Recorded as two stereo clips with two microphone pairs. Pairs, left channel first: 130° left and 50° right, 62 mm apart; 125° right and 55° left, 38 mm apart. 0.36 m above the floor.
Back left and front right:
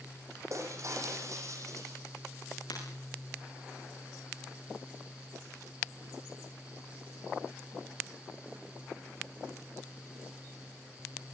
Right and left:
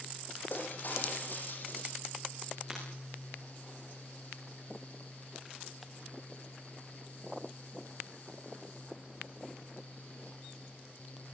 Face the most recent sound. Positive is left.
turn(degrees=140)